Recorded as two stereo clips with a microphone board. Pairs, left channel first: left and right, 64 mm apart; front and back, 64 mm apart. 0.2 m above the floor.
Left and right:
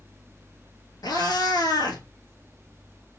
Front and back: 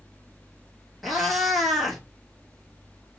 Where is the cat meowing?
90° left, 0.9 m.